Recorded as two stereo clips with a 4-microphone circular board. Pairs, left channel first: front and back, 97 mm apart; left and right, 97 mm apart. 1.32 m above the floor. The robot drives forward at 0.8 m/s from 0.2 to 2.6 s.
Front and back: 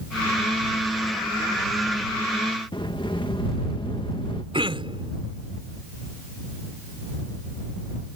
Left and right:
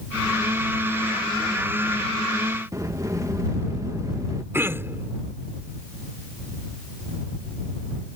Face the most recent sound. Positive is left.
turn(degrees=-155)